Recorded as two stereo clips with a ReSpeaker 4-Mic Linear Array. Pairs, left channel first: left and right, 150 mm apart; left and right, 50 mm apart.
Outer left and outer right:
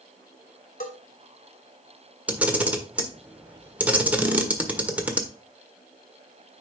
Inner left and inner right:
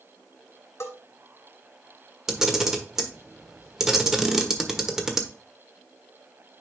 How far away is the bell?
About 2.5 m.